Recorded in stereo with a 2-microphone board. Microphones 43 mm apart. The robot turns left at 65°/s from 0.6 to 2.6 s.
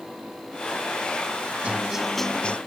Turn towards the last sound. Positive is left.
turn(degrees=150)